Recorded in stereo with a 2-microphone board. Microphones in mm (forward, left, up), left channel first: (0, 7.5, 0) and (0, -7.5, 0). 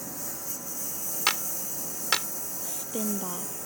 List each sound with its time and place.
0.0 s a lawn mower: centre (ahead or behind); by 3.7 s 10° right (ahead or behind)
1.3 s a clap: 50° left (ahead or behind)
2.6 s a woman speaking: 70° left (ahead or behind)